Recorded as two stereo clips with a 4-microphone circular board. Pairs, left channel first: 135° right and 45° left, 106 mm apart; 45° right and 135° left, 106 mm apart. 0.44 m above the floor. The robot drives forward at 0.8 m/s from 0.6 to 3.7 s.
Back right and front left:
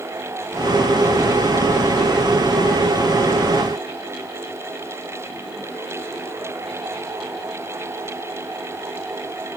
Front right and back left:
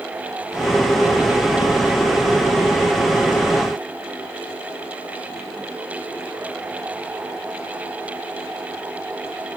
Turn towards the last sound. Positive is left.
No sound to turn to.